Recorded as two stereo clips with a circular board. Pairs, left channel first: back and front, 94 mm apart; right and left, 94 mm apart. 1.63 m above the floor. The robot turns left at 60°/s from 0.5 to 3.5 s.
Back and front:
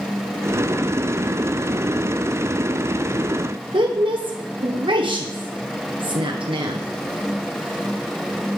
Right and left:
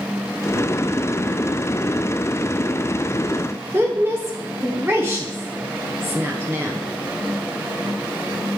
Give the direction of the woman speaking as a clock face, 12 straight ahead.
11 o'clock.